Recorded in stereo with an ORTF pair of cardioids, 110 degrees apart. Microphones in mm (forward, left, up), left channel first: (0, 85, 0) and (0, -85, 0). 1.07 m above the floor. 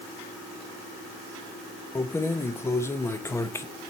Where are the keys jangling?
15° left, 0.7 m.